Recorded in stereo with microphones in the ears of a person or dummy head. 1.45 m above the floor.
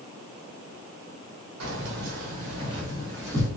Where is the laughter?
No laughter in this recording.